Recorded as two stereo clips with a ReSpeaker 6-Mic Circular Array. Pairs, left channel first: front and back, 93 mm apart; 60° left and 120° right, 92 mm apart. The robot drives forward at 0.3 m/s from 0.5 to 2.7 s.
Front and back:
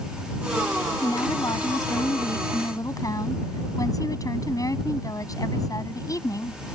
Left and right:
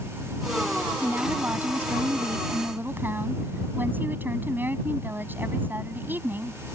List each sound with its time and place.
1.0 s a woman speaking: 50° right